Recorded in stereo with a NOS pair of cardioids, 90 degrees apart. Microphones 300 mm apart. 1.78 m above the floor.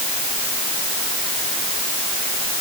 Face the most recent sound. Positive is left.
No sound to turn to.